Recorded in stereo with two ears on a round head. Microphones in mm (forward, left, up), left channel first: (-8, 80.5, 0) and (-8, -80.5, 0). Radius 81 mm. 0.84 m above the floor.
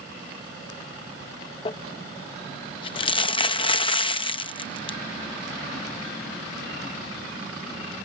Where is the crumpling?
30° left (ahead or behind).